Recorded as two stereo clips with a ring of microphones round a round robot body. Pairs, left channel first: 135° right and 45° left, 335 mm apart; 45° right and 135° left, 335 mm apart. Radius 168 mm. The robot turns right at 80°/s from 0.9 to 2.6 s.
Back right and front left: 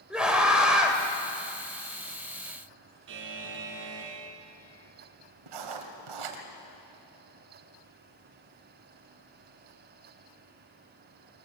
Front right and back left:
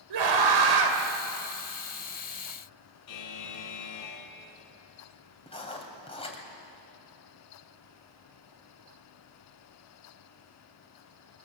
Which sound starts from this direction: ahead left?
Writing, at 5.5 s.